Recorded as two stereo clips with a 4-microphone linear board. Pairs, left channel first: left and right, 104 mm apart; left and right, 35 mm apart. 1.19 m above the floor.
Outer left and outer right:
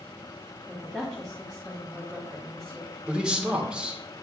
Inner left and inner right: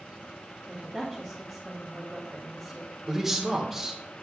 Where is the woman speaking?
Centre (ahead or behind), 1.6 m.